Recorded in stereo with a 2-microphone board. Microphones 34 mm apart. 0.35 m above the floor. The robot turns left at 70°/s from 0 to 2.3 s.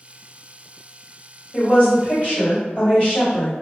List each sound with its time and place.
1.5 s a woman speaking: 140° left, 1.7 m; by 3.5 s 85° left, 1.7 m